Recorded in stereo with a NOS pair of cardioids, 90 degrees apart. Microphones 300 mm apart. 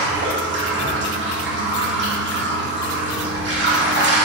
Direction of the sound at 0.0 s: 40° right.